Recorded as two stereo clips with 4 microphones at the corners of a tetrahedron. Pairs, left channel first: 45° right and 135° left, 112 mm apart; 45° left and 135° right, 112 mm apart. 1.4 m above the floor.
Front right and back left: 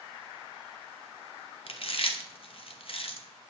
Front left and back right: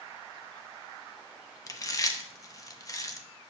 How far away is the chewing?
About 0.9 m.